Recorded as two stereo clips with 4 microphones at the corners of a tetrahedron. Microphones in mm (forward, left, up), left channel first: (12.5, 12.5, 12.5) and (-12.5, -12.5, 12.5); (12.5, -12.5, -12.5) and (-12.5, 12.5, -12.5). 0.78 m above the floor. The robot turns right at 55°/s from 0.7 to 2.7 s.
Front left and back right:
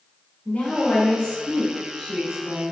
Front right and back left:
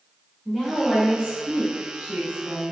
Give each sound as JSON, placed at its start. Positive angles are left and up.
{"t": 0.5, "sound": "a woman speaking", "azimuth_deg": 45, "distance_m": 1.0}